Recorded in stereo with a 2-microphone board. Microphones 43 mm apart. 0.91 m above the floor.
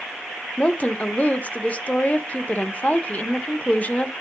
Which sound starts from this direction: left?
A woman speaking, at 0.6 s.